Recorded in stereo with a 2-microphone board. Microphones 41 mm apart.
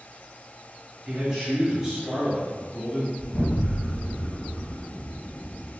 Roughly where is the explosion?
Left.